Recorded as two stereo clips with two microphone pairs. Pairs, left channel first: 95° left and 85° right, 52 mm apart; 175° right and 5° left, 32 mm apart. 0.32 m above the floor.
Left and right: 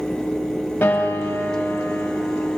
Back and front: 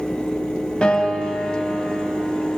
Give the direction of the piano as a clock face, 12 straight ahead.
8 o'clock.